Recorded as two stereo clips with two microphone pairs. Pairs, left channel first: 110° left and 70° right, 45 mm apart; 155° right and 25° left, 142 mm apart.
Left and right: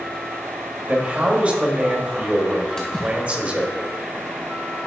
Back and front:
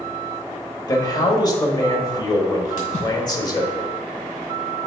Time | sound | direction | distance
0.9 | a man speaking | 110° right | 1.1 m
2.8 | a splash | straight behind | 1.9 m